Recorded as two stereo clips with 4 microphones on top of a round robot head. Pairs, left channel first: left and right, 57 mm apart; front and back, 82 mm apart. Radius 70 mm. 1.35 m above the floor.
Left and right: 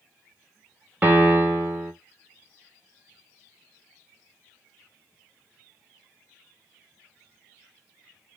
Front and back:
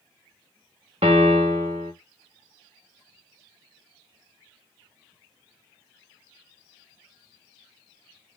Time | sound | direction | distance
1.0 | a piano | 150° right | 1.0 m